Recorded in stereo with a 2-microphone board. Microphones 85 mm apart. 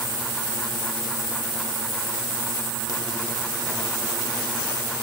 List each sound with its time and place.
Only background noise.